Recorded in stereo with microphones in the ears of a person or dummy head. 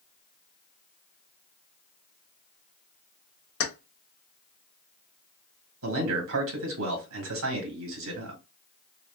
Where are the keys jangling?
80° left, 1.0 m.